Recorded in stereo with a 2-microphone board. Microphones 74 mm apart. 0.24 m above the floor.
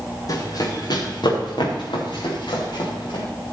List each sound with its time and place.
0.3 s running footsteps: 45° left (ahead or behind), 4 m; by 3.2 s 70° left (ahead or behind), 5 m